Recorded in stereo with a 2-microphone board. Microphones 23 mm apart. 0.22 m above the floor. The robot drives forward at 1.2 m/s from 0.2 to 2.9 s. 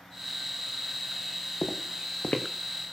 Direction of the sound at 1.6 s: 60° left (ahead or behind).